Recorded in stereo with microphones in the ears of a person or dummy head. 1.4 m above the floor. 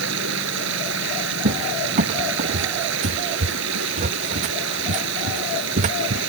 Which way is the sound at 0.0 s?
75° right (ahead or behind).